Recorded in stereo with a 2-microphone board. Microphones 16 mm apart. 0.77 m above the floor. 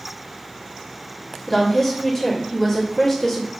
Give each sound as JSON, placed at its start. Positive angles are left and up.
{"t": 1.5, "sound": "a woman speaking", "side_deg": 20, "distance_m": 1.2}